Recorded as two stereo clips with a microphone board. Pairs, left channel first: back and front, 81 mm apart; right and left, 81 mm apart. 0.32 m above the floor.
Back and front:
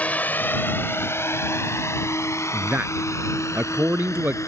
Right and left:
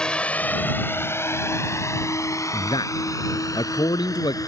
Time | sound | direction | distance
0.0 | a drone | 150° right | ?
2.5 | a man speaking | 65° right | ?